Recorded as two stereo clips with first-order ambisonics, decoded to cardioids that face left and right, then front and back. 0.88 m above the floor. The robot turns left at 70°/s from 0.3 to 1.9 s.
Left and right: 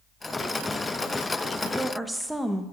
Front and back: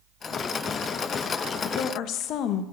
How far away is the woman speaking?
About 0.5 m.